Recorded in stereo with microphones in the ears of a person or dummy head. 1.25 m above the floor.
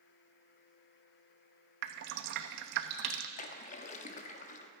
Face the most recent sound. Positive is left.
turn(degrees=40)  # may be behind; listen again after turning